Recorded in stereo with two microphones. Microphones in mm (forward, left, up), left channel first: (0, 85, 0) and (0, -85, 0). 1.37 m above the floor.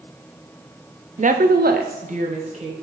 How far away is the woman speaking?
About 0.5 m.